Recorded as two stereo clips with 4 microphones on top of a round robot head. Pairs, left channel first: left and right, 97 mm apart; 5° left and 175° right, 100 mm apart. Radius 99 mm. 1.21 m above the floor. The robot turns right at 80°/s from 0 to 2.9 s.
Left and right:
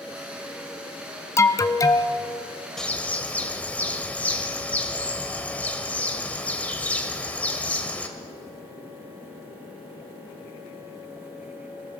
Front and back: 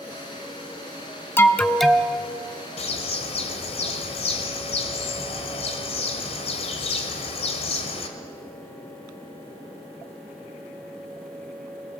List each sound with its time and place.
1.4 s an alarm: 55° left, 1.1 m; by 2.2 s 120° left, 1.1 m
2.8 s a bird: 5° left, 1.8 m; by 8.1 s 15° left, 1.8 m